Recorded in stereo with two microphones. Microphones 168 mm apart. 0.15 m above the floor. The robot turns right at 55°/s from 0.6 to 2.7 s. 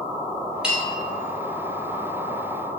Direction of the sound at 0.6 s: 5° right (ahead or behind).